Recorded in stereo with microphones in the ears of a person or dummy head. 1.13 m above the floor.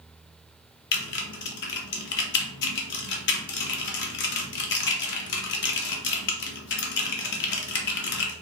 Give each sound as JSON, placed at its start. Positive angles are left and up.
{"t": 0.9, "sound": "typing on a keyboard", "side_deg": 65, "distance_m": 0.7}